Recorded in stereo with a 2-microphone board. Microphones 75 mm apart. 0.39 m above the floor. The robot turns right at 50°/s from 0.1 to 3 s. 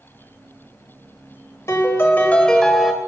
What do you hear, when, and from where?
1.7 s a piano: 125° left, 0.9 m; by 2.9 s 170° right, 0.9 m